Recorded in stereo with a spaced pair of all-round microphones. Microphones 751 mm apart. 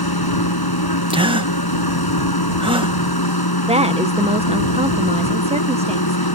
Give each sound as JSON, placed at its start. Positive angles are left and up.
{"t": 0.0, "sound": "a machine running", "side_deg": 30}
{"t": 1.1, "sound": "a gasp", "side_deg": -5}
{"t": 3.7, "sound": "a woman speaking", "side_deg": -10}